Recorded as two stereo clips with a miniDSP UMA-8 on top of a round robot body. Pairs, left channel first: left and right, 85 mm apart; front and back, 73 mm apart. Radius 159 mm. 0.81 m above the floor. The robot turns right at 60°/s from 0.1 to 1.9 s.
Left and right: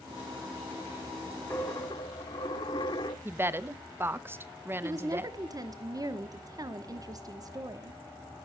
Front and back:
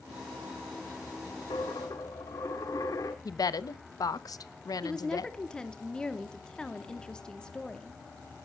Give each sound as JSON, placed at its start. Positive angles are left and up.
{"t": 1.5, "sound": "a dropped coin", "azimuth_deg": 30, "distance_m": 0.5}
{"t": 3.2, "sound": "a woman speaking", "azimuth_deg": -25, "distance_m": 1.0}
{"t": 4.8, "sound": "a woman speaking", "azimuth_deg": -75, "distance_m": 1.3}